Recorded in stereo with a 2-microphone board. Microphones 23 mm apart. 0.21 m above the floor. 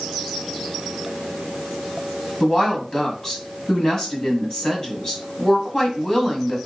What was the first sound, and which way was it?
A woman speaking, 30° left (ahead or behind).